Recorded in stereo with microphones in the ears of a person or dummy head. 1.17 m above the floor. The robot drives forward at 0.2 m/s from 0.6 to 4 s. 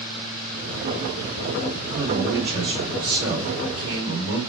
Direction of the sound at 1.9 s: 65° right (ahead or behind).